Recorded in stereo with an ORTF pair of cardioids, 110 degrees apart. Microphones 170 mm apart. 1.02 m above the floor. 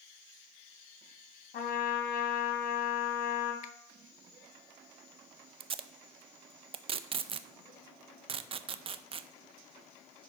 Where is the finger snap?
50° left, 0.8 m.